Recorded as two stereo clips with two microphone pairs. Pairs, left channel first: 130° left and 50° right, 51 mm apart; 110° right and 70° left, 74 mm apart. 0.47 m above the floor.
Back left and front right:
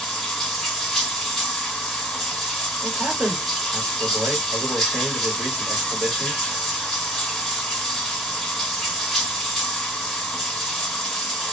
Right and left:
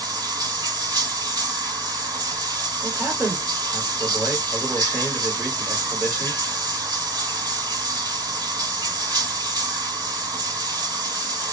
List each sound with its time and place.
0.0 s running water: 40° left, 1.3 m
2.8 s a man speaking: straight ahead, 1.8 m